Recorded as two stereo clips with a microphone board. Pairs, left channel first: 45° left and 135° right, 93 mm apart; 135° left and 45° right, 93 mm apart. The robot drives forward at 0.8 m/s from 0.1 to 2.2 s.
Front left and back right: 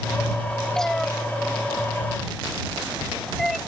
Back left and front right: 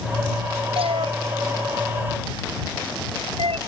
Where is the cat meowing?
40° right.